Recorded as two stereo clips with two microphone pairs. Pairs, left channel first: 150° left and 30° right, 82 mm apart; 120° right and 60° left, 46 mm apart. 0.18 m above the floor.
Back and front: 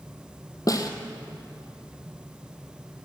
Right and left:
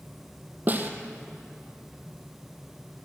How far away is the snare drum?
About 1.0 m.